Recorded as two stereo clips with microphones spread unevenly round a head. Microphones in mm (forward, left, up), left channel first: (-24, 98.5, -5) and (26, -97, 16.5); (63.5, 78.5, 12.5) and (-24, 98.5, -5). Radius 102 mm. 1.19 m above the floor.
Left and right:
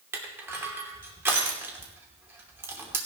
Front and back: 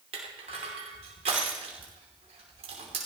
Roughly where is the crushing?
Behind right.